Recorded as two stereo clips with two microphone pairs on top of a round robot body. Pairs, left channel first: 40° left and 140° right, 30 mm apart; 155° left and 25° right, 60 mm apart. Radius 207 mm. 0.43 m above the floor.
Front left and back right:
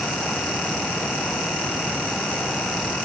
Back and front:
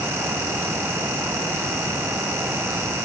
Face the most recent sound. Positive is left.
No sound to turn to.